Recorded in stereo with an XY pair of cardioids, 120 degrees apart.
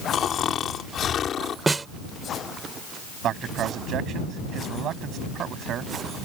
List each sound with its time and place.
0.1 s snoring: 50° left
1.7 s a snare drum: 20° right
3.2 s a man speaking: 60° right